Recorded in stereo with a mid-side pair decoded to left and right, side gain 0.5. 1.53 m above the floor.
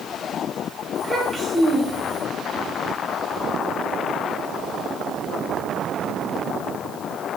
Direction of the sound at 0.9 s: 20° right.